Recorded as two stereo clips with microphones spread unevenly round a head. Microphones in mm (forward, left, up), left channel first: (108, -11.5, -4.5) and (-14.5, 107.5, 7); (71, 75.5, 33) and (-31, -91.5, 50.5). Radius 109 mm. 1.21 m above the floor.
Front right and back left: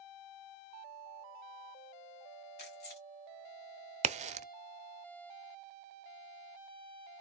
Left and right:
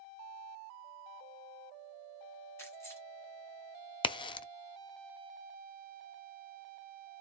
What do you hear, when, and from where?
2.6 s keys jangling: 20° right, 2.5 m
4.0 s a crack: 105° left, 0.5 m